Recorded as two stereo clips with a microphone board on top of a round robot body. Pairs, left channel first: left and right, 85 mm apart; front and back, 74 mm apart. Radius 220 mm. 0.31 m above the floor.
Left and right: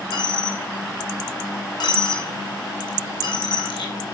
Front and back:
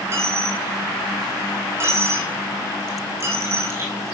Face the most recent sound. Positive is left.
turn(degrees=120)